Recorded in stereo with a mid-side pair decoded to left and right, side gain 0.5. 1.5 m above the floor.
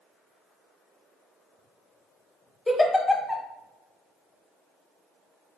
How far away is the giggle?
About 0.8 m.